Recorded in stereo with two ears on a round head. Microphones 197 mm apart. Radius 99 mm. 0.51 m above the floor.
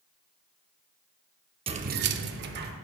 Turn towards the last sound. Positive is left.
turn(degrees=-45)  # may be behind; listen again after turning